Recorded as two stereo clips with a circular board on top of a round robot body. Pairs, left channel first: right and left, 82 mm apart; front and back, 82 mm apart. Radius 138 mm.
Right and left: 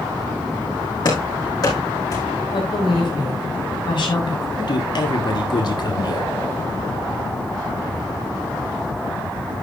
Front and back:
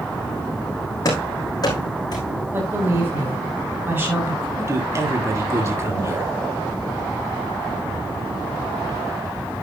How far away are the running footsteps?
About 4.5 m.